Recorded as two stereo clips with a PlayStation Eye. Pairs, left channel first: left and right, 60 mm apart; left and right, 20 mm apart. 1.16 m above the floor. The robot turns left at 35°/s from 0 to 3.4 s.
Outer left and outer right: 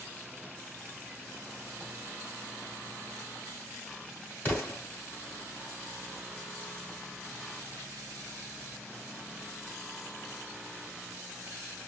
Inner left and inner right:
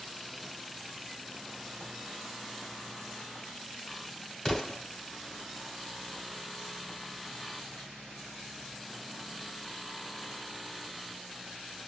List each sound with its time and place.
4.5 s an explosion: 35° left (ahead or behind), 1.8 m